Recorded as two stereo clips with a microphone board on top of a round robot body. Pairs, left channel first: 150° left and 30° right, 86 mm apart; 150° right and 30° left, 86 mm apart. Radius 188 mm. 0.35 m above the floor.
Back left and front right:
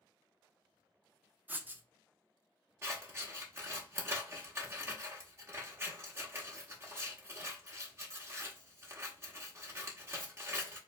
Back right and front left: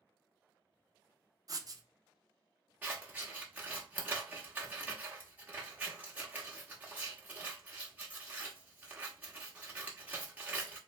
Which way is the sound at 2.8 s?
20° right.